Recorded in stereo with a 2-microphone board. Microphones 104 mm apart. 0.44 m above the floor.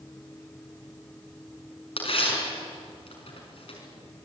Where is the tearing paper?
65° left (ahead or behind), 5.5 m.